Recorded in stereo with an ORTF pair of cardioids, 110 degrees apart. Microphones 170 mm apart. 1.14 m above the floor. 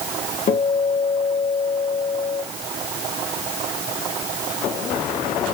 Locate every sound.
0.5 s a guitar: 45° left, 2.5 m